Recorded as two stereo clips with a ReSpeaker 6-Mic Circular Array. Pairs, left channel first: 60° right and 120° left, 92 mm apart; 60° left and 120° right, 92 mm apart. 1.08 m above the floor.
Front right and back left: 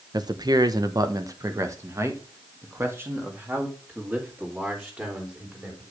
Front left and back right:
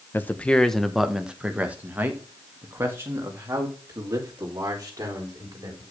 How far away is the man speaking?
About 0.8 m.